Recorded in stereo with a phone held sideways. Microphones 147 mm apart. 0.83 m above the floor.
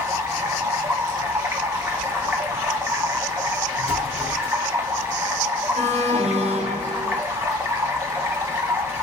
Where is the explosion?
45° left (ahead or behind), 1.0 m.